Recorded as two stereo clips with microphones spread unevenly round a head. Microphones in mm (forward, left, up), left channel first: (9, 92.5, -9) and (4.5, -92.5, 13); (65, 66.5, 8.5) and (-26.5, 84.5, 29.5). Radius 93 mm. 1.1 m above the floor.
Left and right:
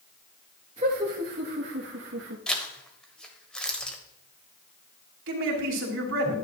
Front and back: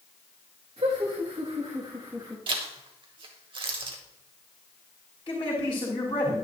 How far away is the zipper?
About 1.4 m.